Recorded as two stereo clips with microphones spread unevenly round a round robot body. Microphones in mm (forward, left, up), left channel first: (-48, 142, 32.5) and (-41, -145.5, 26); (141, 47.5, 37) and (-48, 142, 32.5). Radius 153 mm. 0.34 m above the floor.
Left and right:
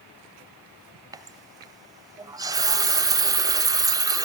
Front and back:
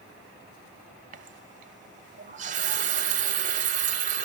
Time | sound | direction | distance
1.1 | a running tap | 160° right | 0.7 m